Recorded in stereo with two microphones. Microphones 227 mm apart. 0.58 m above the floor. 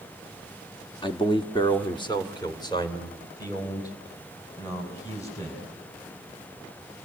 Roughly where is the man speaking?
Left.